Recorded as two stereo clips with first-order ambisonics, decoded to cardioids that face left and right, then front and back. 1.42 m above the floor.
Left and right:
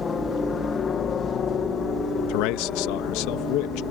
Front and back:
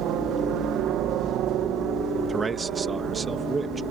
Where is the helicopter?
155° left; by 3.9 s 135° left.